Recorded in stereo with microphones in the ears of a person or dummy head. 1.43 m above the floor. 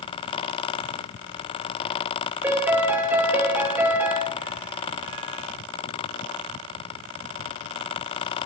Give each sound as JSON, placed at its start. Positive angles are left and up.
{"t": 2.4, "sound": "a piano", "side_deg": -10, "distance_m": 1.0}